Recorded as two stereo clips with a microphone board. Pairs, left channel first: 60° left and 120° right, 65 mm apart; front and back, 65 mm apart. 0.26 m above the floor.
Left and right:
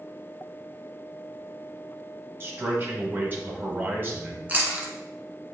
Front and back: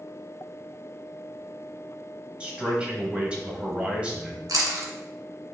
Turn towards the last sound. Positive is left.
turn(degrees=175)